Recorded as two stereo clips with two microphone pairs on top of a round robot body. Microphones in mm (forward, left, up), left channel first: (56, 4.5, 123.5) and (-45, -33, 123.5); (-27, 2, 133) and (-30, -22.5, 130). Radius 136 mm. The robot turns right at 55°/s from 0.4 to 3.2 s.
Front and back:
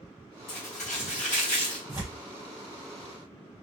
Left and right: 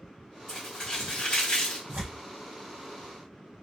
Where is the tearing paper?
105° right, 1.6 m; by 2.2 s 85° right, 1.6 m.